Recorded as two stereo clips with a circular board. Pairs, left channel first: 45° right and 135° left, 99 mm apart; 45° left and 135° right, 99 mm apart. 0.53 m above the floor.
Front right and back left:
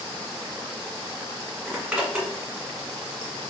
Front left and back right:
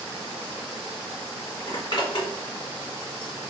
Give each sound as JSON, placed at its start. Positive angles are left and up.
{"t": 1.7, "sound": "a zipper", "azimuth_deg": 55, "distance_m": 1.6}